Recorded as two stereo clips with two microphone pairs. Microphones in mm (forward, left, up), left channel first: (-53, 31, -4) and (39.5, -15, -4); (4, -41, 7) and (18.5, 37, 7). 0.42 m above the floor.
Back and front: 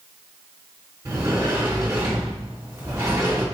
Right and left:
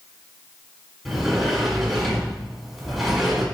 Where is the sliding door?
5° right, 1.6 m.